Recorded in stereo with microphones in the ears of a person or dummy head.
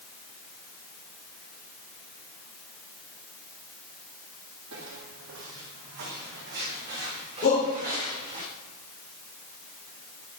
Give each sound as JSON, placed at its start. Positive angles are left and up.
{"t": 4.7, "sound": "footsteps", "side_deg": -65, "distance_m": 3.0}
{"t": 7.4, "sound": "a shout", "side_deg": 45, "distance_m": 4.0}